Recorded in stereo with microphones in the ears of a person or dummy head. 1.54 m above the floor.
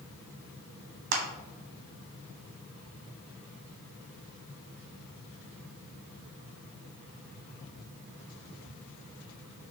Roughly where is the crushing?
Right.